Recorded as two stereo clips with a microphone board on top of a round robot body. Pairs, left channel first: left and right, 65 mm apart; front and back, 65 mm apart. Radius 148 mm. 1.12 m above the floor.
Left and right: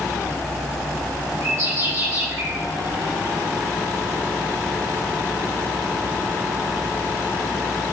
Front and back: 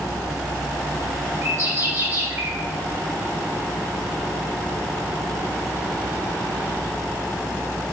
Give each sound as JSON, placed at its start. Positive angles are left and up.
{"t": 1.4, "sound": "a bird", "azimuth_deg": -130, "distance_m": 4.0}